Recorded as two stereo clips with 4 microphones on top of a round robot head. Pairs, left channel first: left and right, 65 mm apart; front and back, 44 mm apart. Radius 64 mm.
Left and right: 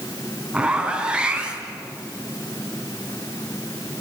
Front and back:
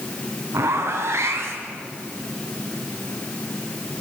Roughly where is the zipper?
Behind.